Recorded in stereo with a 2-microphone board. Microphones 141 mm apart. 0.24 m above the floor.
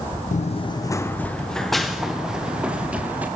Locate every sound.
0.3 s running footsteps: 60° left (ahead or behind), 0.8 m; by 3.3 s 10° right (ahead or behind), 3.5 m